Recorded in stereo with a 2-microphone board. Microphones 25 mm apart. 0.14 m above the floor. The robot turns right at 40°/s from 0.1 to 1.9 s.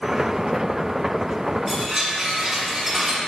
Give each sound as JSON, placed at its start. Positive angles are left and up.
{"t": 1.7, "sound": "a chime", "side_deg": -15, "distance_m": 1.4}